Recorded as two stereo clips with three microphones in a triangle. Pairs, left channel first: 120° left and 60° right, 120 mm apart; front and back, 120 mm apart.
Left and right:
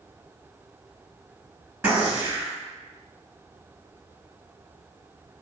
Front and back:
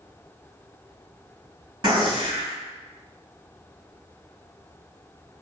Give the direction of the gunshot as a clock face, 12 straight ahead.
4 o'clock.